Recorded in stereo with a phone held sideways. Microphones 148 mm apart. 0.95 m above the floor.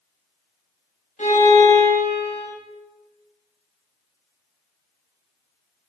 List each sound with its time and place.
1.2 s a violin: 60° left (ahead or behind), 1.4 m